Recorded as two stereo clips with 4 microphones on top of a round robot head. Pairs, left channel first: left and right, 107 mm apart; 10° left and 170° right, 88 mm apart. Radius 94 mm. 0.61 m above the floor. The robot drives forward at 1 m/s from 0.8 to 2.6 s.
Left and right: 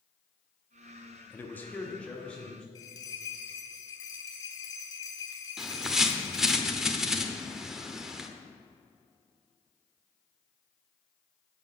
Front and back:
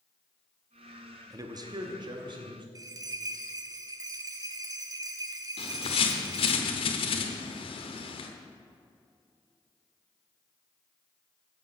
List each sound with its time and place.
1.3 s a man speaking: 155° left, 0.9 m; by 2.6 s 170° left, 2 m
2.8 s a bell: 145° left, 0.8 m
5.6 s a bird: 5° right, 0.9 m